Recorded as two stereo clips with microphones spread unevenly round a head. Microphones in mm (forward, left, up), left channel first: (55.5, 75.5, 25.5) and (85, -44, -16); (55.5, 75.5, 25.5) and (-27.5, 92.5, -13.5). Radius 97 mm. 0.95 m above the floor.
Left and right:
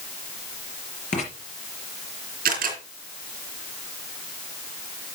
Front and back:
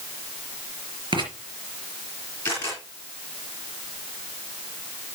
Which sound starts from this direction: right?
A camera shutter, at 2.5 s.